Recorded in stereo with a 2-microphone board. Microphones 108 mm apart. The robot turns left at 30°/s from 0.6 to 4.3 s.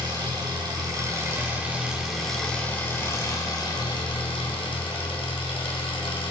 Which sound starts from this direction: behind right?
An engine running, at 0.0 s.